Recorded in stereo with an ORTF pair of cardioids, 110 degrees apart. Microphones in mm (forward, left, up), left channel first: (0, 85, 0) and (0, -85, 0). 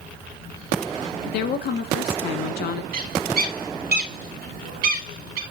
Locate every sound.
1.3 s a woman speaking: 65° left, 1.7 m
2.9 s a bird: 65° right, 3 m